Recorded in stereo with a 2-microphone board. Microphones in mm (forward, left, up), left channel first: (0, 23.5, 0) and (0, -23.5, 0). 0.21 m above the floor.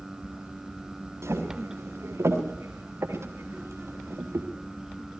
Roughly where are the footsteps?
Right.